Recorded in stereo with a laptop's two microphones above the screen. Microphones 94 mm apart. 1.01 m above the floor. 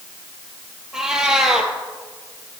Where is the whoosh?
No whoosh in this recording.